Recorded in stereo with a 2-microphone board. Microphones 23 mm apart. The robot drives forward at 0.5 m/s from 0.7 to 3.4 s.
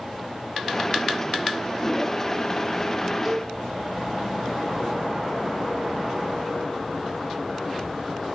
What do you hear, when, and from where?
3.2 s a cowbell: 15° right (ahead or behind), 1.3 m